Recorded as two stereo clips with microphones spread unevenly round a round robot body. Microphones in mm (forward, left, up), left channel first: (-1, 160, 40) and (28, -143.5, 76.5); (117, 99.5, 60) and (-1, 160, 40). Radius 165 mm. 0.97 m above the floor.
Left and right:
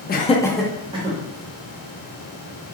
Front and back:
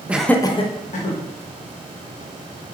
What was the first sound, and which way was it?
Laughter, 95° left.